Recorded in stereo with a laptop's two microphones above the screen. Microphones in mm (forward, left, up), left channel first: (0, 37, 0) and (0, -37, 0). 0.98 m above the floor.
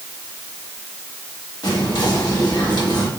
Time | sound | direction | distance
1.6 | whispering | 70° left (ahead or behind) | 1.6 m